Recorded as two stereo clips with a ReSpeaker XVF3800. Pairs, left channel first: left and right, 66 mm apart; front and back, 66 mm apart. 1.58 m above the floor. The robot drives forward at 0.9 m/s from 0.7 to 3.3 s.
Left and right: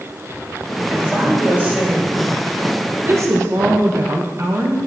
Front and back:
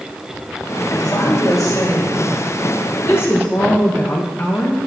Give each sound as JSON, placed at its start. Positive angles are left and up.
{"t": 0.9, "sound": "a woman speaking", "azimuth_deg": -20, "distance_m": 3.5}